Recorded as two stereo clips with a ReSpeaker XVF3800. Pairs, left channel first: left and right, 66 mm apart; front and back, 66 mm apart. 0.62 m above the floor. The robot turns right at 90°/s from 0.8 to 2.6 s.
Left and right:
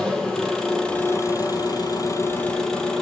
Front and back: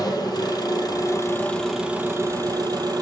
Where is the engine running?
10° left, 4.5 m; by 3.0 s 170° left, 4.5 m.